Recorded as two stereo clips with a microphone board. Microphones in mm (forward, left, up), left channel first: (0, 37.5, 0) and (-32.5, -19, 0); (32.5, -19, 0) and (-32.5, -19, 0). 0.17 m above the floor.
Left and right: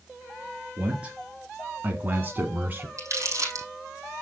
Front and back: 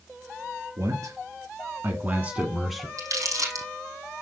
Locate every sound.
0.8 s a man speaking: 170° left, 2.5 m; by 2.9 s 85° right, 1.4 m
3.0 s crumpling: 155° right, 5.5 m